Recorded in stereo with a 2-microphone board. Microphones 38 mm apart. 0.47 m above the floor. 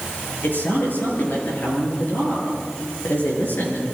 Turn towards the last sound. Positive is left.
turn(degrees=50)  # may be behind; listen again after turning